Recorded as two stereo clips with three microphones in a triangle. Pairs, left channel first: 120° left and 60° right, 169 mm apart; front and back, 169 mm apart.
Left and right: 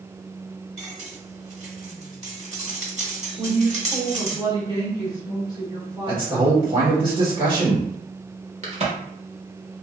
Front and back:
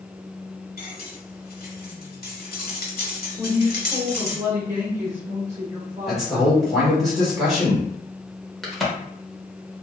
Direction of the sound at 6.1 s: 90° right.